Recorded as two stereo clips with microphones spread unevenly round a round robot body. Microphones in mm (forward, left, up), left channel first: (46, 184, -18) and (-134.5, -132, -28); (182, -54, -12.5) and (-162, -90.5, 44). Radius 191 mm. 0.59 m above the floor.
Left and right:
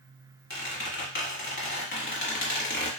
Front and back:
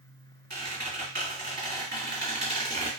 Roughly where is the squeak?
Behind left.